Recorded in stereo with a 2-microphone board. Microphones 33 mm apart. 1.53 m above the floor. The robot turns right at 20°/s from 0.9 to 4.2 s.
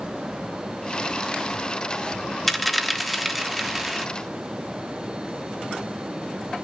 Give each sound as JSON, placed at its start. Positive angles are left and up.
{"t": 2.5, "sound": "a dropped coin", "side_deg": 0, "distance_m": 1.1}